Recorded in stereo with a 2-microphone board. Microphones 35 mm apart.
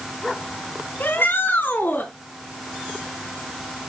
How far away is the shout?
About 3 m.